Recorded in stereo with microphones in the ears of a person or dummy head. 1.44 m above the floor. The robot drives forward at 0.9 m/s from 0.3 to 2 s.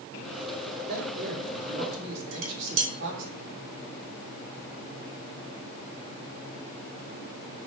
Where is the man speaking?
50° right (ahead or behind), 3 m; by 3.3 s 70° right (ahead or behind), 2.5 m.